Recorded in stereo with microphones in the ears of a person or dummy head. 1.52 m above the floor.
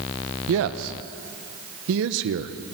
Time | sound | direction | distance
0.5 | a man speaking | 65° right (ahead or behind) | 1.1 m